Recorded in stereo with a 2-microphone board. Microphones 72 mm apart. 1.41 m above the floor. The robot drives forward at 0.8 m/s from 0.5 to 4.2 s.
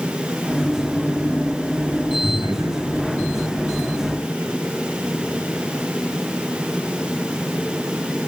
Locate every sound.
2.2 s laughter: 70° right (ahead or behind), 9 m; by 4.5 s 65° right (ahead or behind), 9.5 m